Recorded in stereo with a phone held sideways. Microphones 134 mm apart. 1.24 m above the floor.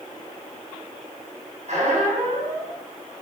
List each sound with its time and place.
1.7 s a squeak: 60° right (ahead or behind), 7.5 m